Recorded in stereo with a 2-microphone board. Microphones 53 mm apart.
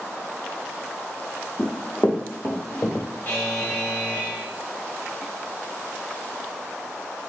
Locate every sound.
1.6 s running footsteps: 20° left (ahead or behind), 0.9 m; by 3.1 s 55° left (ahead or behind), 1.6 m
3.2 s a buzzer: 30° left (ahead or behind), 1.1 m